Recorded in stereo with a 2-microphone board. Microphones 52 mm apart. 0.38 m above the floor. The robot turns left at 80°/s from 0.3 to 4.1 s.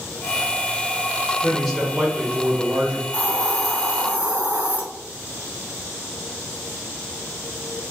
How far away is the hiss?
About 2 m.